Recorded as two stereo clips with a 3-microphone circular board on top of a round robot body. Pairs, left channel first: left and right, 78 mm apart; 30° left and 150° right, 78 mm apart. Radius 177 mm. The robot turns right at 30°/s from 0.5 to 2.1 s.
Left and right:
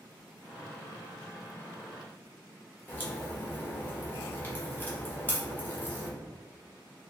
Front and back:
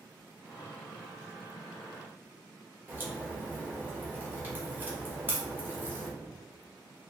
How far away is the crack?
About 1.5 m.